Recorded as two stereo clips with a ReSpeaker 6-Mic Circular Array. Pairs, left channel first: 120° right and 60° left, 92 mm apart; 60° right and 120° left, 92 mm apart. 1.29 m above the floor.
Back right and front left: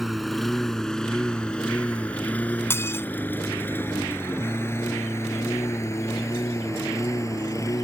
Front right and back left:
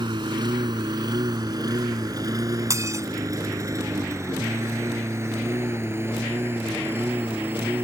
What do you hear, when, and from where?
0.0 s a lawn mower: 150° left; by 7.8 s 175° right
2.7 s dishes clattering: 175° left